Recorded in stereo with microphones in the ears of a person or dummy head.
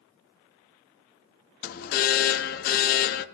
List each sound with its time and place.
1.6 s an alarm: 45° left (ahead or behind), 0.6 m